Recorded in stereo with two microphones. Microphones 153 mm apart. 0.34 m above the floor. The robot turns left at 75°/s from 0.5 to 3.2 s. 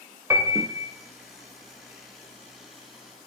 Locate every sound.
0.3 s a piano: 20° right (ahead or behind), 0.6 m; by 0.9 s 5° right (ahead or behind), 0.6 m